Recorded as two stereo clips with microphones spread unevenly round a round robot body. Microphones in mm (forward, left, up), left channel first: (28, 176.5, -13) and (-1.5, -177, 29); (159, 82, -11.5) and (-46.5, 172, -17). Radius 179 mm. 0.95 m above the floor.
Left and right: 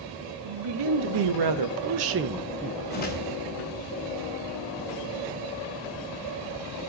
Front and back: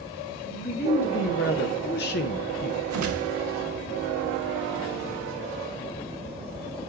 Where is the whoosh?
155° left, 1.1 m.